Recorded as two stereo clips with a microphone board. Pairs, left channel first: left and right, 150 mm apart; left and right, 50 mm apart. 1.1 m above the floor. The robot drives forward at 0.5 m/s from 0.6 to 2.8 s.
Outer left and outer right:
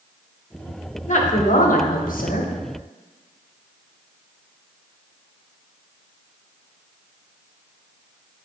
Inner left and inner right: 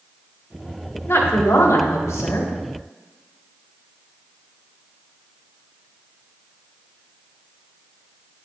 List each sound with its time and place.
1.1 s a woman speaking: 55° left (ahead or behind), 1.4 m; by 2.5 s 70° left (ahead or behind), 1.2 m